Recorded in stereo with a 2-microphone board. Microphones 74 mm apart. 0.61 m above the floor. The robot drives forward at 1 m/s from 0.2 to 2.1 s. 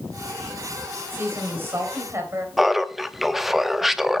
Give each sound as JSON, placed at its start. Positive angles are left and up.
{"t": 1.1, "sound": "a woman speaking", "side_deg": -30, "distance_m": 4.0}
{"t": 2.6, "sound": "laughter", "side_deg": -5, "distance_m": 0.7}